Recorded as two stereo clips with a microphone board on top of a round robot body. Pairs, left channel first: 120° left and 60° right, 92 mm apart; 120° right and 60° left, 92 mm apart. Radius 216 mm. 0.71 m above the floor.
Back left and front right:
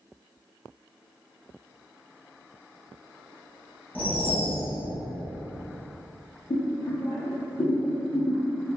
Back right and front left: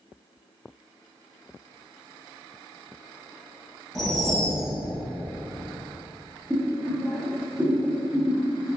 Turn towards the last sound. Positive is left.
turn(degrees=130)